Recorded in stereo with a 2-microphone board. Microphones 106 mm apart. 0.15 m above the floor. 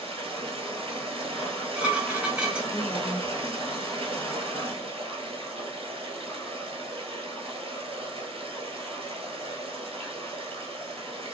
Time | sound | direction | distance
0.0 | running water | 65° right (ahead or behind) | 1.0 m
1.4 | dishes clattering | 10° right (ahead or behind) | 0.9 m
2.7 | a woman speaking | 20° left (ahead or behind) | 1.0 m